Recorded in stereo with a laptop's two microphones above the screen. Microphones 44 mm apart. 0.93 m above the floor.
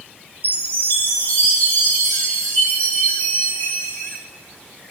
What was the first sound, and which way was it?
A chime, 70° left (ahead or behind).